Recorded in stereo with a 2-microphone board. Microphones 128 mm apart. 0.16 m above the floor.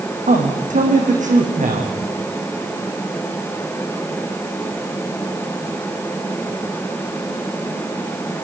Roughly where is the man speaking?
Right.